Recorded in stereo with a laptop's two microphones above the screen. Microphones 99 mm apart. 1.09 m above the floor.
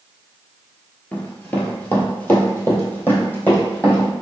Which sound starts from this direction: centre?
Running footsteps, at 1.1 s.